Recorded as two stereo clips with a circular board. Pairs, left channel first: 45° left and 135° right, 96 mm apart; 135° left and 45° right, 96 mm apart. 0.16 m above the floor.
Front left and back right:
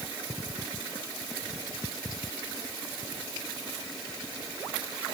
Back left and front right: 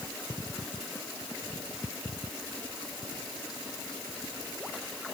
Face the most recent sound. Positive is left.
No sound to turn to.